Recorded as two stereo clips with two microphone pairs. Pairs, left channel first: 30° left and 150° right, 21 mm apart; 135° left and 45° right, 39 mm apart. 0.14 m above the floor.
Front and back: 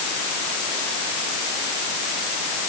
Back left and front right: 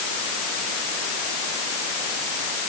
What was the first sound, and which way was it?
Only background noise.